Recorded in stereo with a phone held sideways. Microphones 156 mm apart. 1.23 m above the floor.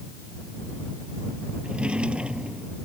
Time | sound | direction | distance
1.6 | a drawer | 5° right (ahead or behind) | ?